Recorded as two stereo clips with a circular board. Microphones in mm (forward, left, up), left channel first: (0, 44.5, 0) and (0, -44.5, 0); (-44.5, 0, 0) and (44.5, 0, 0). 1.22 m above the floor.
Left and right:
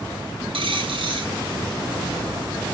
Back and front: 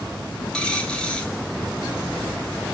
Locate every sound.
0.5 s a dropped coin: 100° right, 4 m